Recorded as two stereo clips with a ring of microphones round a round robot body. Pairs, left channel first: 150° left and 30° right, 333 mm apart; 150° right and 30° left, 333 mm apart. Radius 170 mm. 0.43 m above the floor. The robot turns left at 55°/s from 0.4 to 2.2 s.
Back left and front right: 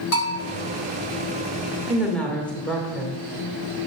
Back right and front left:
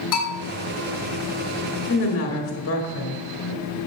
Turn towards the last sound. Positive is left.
turn(degrees=-125)